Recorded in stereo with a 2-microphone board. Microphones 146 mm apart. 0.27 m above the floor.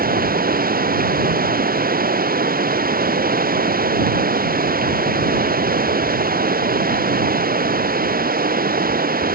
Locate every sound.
0.0 s running water: 90° right